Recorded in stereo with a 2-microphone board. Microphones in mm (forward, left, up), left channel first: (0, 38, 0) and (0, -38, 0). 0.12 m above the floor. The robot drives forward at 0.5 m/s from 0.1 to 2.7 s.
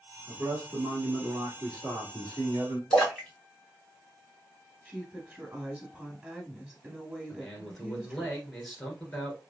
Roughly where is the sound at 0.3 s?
Right.